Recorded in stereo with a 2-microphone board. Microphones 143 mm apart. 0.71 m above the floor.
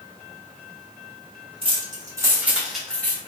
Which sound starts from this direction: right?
Keys jangling, at 1.6 s.